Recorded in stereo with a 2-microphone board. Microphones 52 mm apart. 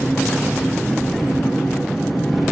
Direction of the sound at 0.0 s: Centre (ahead or behind).